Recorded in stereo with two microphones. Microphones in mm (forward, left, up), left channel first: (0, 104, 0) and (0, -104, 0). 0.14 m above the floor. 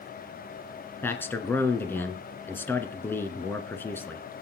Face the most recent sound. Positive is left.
turn(degrees=10)  # may be behind; listen again after turning